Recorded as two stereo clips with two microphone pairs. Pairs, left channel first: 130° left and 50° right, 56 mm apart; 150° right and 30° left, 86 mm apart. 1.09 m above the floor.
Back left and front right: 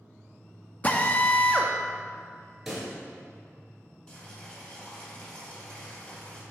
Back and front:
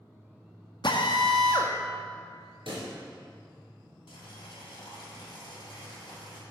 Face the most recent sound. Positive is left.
turn(degrees=-165)